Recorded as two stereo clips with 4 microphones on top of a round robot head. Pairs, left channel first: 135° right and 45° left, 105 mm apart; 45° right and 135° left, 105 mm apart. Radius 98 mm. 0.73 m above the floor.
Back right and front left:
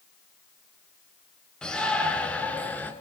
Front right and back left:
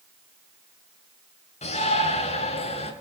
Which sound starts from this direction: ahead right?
A shout, at 1.6 s.